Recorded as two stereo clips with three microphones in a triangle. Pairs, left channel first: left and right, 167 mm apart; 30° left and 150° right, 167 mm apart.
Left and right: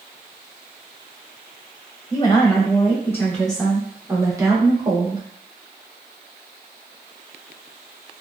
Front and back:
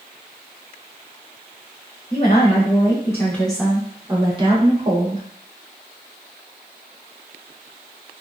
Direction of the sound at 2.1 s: 45° left.